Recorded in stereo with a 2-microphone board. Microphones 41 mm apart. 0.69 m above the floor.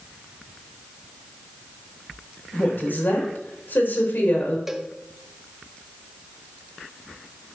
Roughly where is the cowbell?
Centre.